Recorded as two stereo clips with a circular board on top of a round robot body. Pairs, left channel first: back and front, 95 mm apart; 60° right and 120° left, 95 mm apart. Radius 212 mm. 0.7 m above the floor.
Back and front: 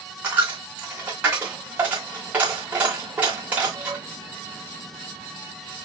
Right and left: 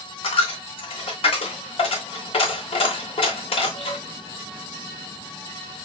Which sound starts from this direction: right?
A dropped coin, at 0.2 s.